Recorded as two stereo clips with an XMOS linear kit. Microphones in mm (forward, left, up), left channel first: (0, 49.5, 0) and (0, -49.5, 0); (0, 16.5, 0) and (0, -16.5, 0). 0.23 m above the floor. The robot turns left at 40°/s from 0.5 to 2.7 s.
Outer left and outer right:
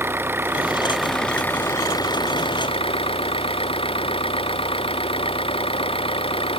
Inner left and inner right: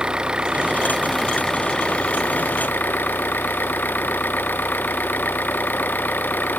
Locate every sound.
0.0 s an engine running: 160° right; by 6.6 s 115° left